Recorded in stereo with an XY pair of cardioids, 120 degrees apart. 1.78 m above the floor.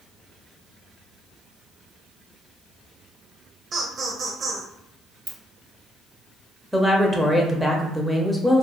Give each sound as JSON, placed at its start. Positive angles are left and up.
{"t": 3.7, "sound": "laughter", "azimuth_deg": -40, "distance_m": 0.7}
{"t": 5.3, "sound": "a ringtone", "azimuth_deg": -20, "distance_m": 1.9}
{"t": 6.7, "sound": "a woman speaking", "azimuth_deg": 0, "distance_m": 0.8}